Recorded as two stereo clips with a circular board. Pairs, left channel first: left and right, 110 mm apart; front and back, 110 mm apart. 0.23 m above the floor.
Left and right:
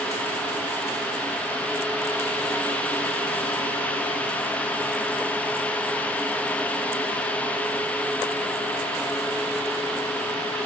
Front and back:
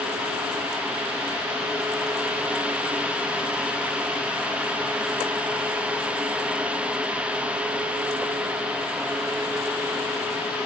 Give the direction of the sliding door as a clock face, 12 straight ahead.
I don't hear a sliding door.